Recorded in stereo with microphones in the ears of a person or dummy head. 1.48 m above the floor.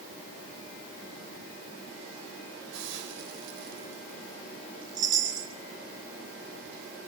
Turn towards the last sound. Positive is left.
turn(degrees=-20)  # may be behind; listen again after turning